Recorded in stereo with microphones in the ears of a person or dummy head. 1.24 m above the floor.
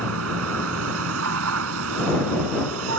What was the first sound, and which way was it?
A vehicle, 85° right.